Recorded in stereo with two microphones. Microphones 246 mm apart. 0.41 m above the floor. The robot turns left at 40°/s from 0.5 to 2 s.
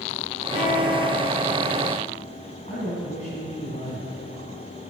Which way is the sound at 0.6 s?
50° left.